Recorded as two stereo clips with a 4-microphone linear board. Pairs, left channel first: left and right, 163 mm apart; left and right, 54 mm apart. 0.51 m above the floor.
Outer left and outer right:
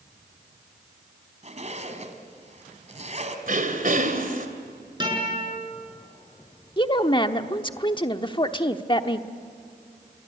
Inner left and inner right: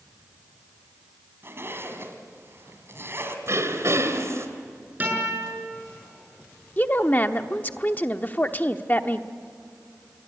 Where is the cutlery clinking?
I don't hear cutlery clinking.